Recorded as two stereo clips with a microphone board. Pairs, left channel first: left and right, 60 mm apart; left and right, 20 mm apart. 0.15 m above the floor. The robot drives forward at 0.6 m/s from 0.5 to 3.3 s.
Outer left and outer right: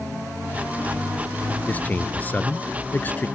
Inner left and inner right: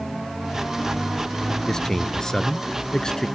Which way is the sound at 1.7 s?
25° left (ahead or behind).